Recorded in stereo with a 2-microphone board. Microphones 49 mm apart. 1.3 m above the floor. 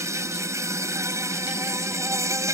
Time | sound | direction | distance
0.0 | an insect | 85° right | ?